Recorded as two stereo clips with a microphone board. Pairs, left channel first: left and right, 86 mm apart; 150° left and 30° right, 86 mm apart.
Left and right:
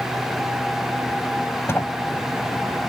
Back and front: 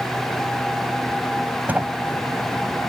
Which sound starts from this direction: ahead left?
A sliding door, at 1.7 s.